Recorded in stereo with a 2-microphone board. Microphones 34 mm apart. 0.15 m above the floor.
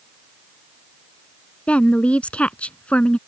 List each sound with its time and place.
1.7 s a woman speaking: 40° left (ahead or behind)